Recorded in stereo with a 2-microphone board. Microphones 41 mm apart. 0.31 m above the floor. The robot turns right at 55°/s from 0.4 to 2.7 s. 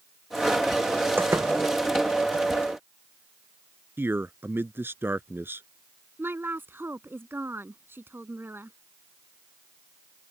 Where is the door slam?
60° right (ahead or behind); by 1.6 s 80° right.